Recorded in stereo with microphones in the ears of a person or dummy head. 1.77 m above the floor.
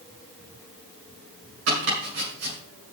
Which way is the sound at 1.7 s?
70° right (ahead or behind).